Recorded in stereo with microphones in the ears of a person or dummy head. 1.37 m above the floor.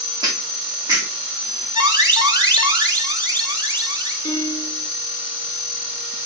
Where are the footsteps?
25° right (ahead or behind), 4 m; by 1.6 s 20° right (ahead or behind), 3 m.